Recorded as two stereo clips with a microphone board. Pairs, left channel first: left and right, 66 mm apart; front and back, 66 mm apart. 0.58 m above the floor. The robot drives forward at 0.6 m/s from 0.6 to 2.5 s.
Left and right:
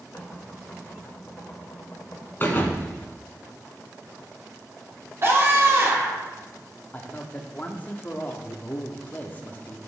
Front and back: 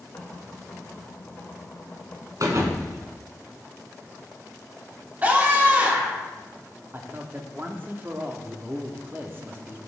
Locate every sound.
0.1 s knocking: 35° left, 2.5 m; by 2.3 s 55° left, 2.0 m
2.4 s a thud: 150° left, 1.3 m
5.2 s a scream: 120° right, 1.7 m
6.9 s a man speaking: 140° left, 0.8 m